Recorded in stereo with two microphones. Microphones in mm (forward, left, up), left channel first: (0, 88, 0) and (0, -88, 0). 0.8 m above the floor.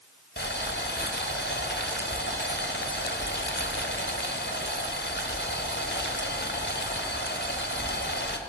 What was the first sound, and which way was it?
Boiling, 90° left.